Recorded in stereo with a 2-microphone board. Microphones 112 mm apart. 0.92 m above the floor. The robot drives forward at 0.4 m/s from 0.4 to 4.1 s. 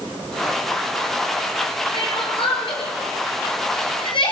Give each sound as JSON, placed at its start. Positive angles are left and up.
{"t": 1.9, "sound": "crying", "side_deg": 50, "distance_m": 8.0}